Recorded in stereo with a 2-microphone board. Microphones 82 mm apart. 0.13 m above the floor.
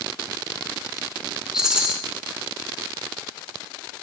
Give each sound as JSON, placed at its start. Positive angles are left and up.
{"t": 1.5, "sound": "a rattle", "side_deg": -10, "distance_m": 0.6}